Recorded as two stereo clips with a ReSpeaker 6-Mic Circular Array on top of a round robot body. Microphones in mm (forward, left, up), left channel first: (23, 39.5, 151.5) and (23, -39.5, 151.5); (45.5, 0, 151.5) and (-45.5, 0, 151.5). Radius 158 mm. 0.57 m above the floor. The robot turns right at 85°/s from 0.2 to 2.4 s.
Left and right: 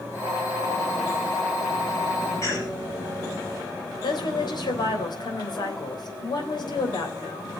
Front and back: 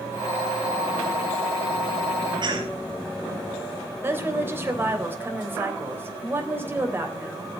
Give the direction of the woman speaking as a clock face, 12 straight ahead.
8 o'clock.